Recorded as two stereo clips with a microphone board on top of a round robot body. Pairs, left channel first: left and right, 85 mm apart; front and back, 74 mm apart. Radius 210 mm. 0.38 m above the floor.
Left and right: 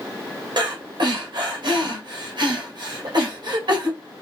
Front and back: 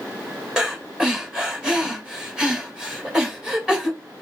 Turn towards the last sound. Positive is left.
turn(degrees=-105)